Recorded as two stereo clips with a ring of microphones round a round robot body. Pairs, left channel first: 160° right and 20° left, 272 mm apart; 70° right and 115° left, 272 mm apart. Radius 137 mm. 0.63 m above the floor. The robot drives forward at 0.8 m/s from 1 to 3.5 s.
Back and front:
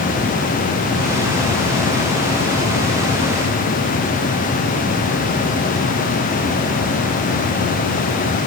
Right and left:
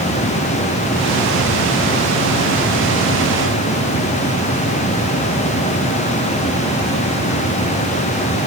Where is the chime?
No chime in this recording.